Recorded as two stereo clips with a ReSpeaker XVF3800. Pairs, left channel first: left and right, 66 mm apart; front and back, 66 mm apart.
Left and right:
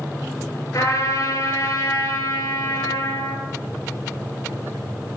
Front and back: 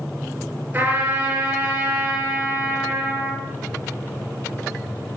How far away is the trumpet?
About 4.5 m.